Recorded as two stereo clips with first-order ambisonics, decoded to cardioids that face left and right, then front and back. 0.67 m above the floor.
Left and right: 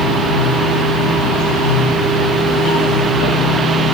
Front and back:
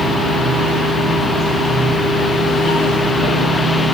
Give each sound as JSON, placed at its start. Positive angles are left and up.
{"t": 0.0, "sound": "running water", "azimuth_deg": 75, "distance_m": 9.5}